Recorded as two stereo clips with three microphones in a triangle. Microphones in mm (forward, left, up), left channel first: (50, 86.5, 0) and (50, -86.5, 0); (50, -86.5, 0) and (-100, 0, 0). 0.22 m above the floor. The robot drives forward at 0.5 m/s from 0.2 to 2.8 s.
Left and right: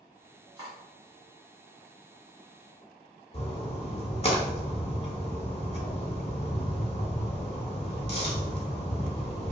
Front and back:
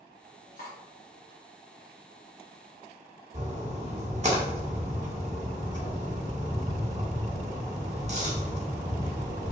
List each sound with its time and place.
0.6 s cutlery clinking: 25° right, 1.5 m; by 0.8 s 30° right, 1.4 m
3.3 s a splash: 120° left, 0.7 m